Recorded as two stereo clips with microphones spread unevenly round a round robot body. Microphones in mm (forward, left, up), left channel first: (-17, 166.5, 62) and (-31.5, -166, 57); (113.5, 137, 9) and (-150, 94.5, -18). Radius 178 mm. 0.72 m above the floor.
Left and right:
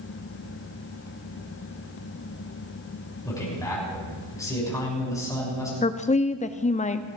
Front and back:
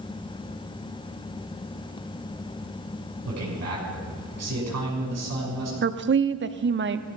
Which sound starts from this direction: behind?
A man speaking, at 3.2 s.